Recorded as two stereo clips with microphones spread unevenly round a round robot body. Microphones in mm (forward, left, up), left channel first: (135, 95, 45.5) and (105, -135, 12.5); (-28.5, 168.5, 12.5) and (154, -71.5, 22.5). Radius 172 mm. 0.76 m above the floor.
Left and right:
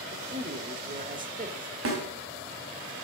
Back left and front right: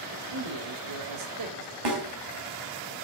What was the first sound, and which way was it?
A man speaking, 45° right.